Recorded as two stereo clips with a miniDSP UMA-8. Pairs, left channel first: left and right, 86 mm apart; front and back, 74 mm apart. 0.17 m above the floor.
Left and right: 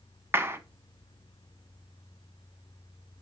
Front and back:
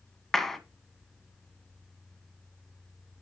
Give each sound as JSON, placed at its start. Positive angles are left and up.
{"t": 0.3, "sound": "a clap", "azimuth_deg": -80, "distance_m": 1.0}